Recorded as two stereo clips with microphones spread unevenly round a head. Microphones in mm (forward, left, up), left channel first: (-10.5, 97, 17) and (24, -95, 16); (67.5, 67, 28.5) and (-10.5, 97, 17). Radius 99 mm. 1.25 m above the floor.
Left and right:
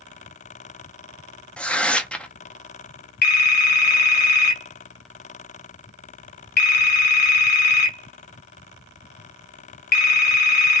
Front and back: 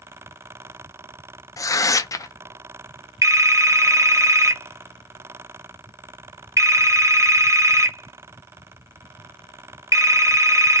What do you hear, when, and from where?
1.6 s tearing paper: 20° left, 0.6 m
3.2 s a phone ringing: 100° left, 1.0 m